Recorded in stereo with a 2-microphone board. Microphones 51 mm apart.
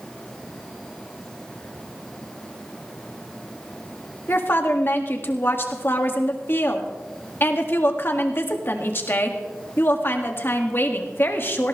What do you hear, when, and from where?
4.3 s a woman speaking: 45° left (ahead or behind), 2 m